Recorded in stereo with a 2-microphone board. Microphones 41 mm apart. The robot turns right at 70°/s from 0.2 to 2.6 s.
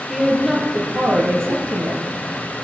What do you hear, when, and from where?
0.1 s a woman speaking: straight behind, 5 m; by 2.0 s 50° right, 5 m